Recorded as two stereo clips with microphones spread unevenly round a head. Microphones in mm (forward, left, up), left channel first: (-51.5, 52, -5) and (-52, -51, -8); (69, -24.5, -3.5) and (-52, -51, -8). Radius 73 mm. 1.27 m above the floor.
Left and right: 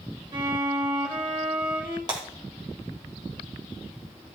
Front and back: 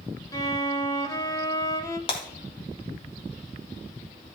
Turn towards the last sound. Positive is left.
turn(degrees=-30)